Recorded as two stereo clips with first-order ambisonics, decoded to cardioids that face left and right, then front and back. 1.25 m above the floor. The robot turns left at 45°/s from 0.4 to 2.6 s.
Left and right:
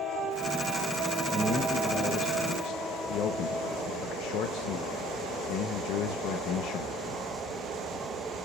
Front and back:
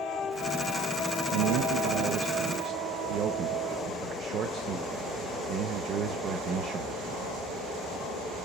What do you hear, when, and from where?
1.3 s a man speaking: 175° right, 0.7 m; by 7.2 s 125° left, 0.7 m